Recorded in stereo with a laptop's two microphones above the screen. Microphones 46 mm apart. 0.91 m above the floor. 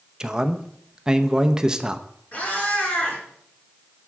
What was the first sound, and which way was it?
A man speaking, 15° right (ahead or behind).